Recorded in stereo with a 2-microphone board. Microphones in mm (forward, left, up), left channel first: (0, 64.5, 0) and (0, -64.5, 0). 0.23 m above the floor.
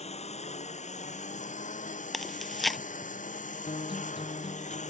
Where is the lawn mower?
55° left (ahead or behind); by 4.9 s 70° left (ahead or behind).